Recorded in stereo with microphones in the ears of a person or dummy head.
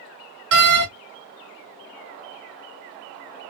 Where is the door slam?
55° right (ahead or behind), 0.8 m.